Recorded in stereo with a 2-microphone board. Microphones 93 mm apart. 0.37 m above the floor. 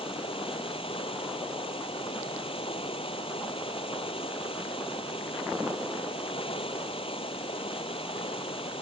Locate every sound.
0.0 s running water: 80° left